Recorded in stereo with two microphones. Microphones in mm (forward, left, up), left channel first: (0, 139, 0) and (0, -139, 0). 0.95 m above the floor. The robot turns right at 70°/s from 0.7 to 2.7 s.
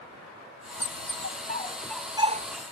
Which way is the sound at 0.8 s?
70° left (ahead or behind).